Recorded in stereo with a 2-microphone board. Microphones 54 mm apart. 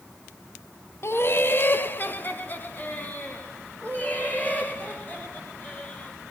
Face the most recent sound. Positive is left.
turn(degrees=30)  # may be behind; listen again after turning